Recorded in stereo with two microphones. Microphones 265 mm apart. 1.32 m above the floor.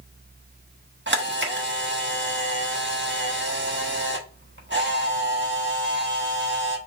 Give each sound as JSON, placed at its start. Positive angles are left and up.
{"t": 1.1, "sound": "a camera shutter", "side_deg": -45, "distance_m": 1.2}